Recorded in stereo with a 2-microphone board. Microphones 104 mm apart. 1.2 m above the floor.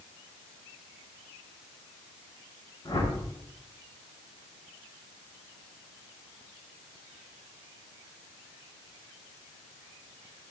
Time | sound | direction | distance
2.9 | a whoosh | 45° left (ahead or behind) | 2.5 m